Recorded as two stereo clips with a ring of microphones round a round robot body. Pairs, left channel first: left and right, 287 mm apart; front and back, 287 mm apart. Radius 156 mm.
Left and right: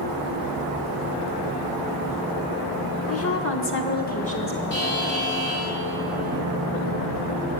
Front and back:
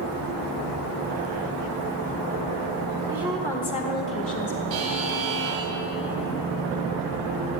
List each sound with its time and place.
3.1 s a woman speaking: 105° left, 1.1 m; by 4.6 s 20° left, 1.3 m
4.7 s a buzzer: 150° left, 1.6 m